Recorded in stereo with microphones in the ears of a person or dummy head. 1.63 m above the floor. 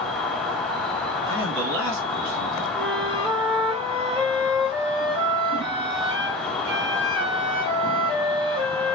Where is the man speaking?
60° right (ahead or behind), 2 m.